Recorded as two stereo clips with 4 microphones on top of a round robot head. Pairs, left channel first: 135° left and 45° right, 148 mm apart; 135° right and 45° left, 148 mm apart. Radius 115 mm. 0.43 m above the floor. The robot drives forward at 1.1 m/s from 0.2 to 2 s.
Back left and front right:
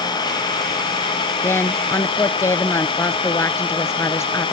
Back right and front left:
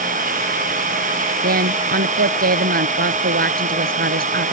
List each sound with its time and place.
0.0 s an engine running: 75° left; by 4.5 s 80° left
1.4 s a woman speaking: 60° left; by 4.5 s 65° left